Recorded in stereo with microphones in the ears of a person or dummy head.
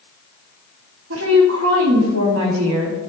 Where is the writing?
No writing in this recording.